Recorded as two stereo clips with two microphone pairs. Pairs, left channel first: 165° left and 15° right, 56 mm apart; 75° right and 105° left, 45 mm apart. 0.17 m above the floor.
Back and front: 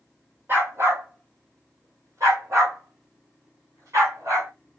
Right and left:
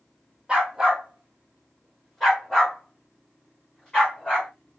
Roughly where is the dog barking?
Ahead left.